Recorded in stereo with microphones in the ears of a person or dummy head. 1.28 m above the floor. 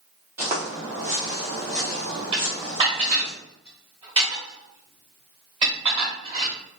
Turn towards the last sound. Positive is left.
turn(degrees=-30)  # may be behind; listen again after turning